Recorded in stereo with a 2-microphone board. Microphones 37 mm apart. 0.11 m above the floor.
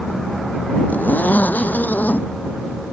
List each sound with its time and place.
0.9 s a zipper: 55° left (ahead or behind)